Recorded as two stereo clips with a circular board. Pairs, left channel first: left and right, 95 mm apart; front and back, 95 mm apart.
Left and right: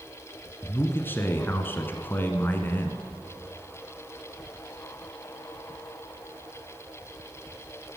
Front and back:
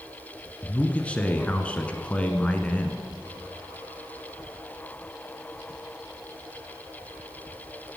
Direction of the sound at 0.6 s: 60° left.